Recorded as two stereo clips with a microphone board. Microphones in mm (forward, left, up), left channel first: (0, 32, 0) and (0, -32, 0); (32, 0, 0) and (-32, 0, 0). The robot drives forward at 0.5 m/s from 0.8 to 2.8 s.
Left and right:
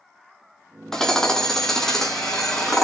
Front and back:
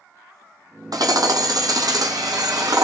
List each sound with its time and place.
0.9 s hammering: 170° left, 1.9 m; by 2.8 s 175° left, 3 m